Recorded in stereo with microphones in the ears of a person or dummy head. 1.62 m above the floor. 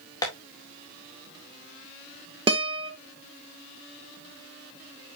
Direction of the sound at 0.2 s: 20° left (ahead or behind).